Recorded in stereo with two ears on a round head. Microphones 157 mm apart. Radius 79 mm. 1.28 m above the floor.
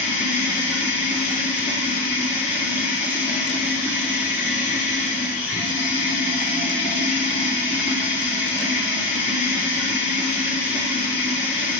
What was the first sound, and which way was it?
Running water, 45° left (ahead or behind).